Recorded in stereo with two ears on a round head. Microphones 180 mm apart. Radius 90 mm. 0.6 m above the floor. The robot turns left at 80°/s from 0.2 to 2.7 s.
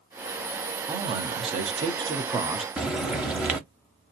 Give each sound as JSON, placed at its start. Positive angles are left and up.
{"t": 0.9, "sound": "a man speaking", "azimuth_deg": -40, "distance_m": 0.7}
{"t": 2.8, "sound": "frying", "side_deg": -5, "distance_m": 0.7}